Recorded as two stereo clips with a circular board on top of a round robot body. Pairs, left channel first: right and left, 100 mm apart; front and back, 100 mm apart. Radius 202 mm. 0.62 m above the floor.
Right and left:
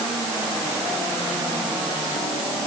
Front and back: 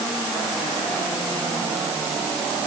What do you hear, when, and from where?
Only background noise.